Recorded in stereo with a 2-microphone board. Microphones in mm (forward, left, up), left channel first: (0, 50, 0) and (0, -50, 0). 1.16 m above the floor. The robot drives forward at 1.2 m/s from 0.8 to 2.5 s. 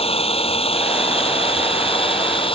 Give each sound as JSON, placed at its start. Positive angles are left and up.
{"t": 0.0, "sound": "an engine running", "side_deg": 75}